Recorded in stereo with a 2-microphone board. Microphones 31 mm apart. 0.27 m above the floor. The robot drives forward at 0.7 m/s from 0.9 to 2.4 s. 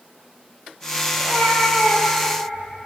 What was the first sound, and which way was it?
A cat meowing, 30° right (ahead or behind).